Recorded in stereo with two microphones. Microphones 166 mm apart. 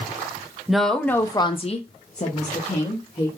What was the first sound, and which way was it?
A woman speaking, 5° right (ahead or behind).